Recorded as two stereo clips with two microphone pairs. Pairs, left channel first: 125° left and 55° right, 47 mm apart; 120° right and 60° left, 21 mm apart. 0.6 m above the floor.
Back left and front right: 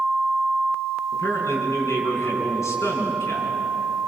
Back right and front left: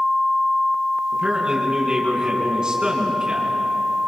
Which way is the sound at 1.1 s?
115° left.